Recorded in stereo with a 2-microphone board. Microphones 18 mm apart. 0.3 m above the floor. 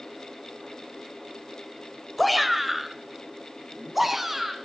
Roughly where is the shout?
Centre.